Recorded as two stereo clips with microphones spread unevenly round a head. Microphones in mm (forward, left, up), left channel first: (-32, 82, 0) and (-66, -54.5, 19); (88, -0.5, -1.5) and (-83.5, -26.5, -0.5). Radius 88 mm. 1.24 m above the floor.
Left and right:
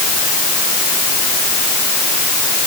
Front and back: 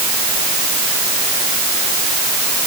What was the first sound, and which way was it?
Only background noise.